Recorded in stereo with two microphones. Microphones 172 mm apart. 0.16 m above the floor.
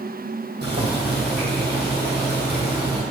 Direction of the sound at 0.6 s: 75° right (ahead or behind).